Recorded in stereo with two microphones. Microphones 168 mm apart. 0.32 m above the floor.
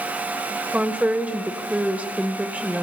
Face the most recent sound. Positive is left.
turn(degrees=-10)  # may be behind; listen again after turning